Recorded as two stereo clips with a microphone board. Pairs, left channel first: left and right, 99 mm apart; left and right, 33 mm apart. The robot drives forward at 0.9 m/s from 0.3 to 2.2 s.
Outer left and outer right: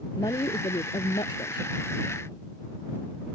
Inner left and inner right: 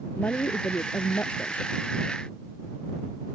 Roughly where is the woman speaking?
Left.